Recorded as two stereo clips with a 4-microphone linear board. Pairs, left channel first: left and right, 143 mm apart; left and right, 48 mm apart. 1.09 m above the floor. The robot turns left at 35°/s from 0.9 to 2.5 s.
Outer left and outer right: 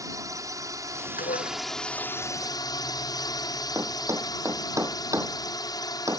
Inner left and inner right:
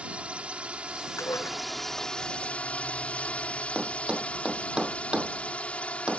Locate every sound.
0.0 s a drone: 155° right; by 6.2 s 150° left
1.2 s dishes clattering: 85° left; by 1.6 s 75° left (ahead or behind)
3.8 s a thud: 20° right (ahead or behind)